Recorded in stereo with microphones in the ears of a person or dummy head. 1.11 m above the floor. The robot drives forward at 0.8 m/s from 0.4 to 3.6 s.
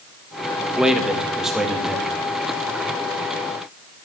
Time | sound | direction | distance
0.8 | a man speaking | 5° right (ahead or behind) | 1.0 m